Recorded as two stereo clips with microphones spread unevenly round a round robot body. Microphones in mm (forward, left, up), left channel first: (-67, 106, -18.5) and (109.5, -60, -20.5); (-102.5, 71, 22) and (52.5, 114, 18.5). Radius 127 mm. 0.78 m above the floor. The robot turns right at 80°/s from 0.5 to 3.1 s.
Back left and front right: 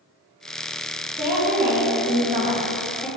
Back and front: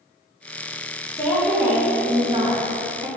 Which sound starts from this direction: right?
A woman speaking, at 1.2 s.